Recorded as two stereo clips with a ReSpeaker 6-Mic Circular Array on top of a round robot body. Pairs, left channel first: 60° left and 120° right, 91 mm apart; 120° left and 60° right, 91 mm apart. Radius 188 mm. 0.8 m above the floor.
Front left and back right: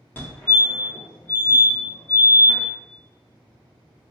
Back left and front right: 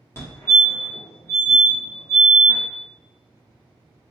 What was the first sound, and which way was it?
A fire alarm, 100° left.